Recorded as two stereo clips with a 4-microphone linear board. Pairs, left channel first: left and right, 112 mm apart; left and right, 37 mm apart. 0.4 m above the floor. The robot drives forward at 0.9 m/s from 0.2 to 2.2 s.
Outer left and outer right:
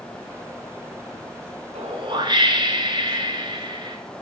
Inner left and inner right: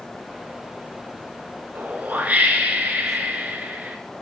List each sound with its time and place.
1.8 s a whoosh: 65° right (ahead or behind), 0.7 m; by 4.0 s 40° right (ahead or behind), 0.9 m